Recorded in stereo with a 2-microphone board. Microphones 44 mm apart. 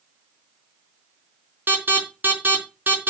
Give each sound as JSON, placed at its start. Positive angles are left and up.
{"t": 1.7, "sound": "an alarm", "side_deg": -45, "distance_m": 4.0}